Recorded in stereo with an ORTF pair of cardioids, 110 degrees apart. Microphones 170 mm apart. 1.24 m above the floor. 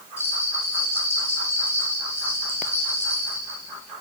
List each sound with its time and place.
0.2 s a bell: 15° left, 3.5 m